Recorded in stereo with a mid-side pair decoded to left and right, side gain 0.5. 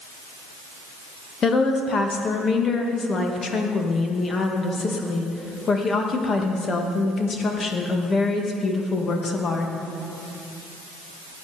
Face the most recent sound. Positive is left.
turn(degrees=40)